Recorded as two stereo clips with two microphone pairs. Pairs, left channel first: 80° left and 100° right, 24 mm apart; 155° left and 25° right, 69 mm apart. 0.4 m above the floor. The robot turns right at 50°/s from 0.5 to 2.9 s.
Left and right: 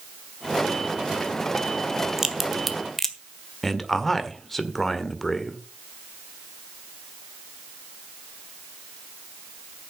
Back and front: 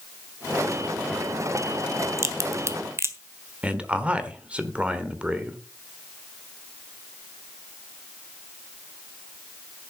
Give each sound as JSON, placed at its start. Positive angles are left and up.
{"t": 2.2, "sound": "a crack", "azimuth_deg": -35, "distance_m": 1.5}
{"t": 3.6, "sound": "a man speaking", "azimuth_deg": 15, "distance_m": 1.5}